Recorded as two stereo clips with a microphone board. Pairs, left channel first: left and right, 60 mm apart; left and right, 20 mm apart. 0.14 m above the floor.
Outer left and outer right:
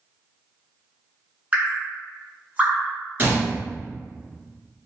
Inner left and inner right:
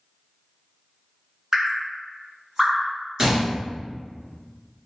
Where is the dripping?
25° right (ahead or behind), 1.6 m.